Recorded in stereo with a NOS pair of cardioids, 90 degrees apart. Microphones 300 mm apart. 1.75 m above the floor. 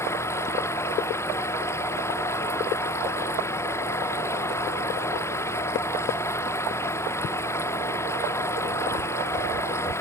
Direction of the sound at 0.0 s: 10° left.